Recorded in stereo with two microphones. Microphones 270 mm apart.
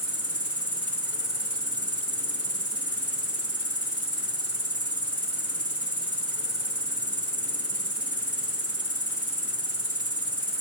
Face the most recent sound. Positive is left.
turn(degrees=60)  # may be behind; listen again after turning